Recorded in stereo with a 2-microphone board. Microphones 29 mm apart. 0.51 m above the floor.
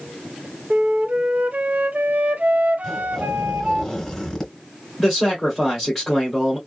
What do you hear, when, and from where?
0.7 s a flute: 70° right (ahead or behind), 0.5 m
2.8 s a zipper: 5° left (ahead or behind), 2 m
5.0 s a man speaking: 10° right (ahead or behind), 1.7 m